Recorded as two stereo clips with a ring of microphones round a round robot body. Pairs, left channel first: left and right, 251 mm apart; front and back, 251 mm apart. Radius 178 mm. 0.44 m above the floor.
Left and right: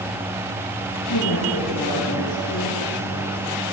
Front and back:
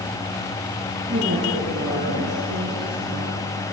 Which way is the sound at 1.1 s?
115° left.